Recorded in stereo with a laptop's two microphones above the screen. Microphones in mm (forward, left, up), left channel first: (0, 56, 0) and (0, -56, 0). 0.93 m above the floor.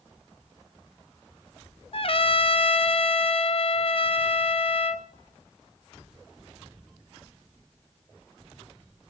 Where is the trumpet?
50° left (ahead or behind), 0.8 m.